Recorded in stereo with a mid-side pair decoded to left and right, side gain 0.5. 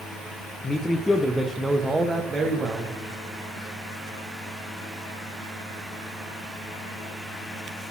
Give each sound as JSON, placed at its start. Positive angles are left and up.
{"t": 0.6, "sound": "a man speaking", "azimuth_deg": 35, "distance_m": 0.7}